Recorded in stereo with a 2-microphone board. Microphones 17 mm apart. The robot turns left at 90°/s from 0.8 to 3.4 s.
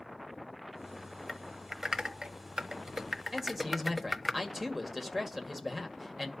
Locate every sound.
1.3 s typing on a keyboard: 15° left (ahead or behind), 0.9 m; by 4.3 s 5° right (ahead or behind), 0.9 m
3.3 s a man speaking: 25° right (ahead or behind), 1.9 m; by 6.3 s 15° right (ahead or behind), 1.9 m